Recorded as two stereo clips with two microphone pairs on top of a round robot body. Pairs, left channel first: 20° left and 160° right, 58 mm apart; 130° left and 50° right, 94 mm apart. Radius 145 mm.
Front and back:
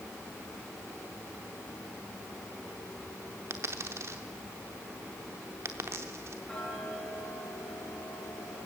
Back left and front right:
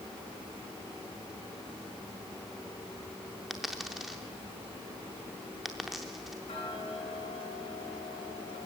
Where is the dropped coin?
135° right, 0.5 m.